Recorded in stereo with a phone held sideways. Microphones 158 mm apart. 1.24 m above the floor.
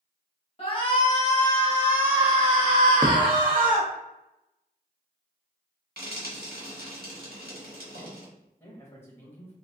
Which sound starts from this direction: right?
Frying, at 6.0 s.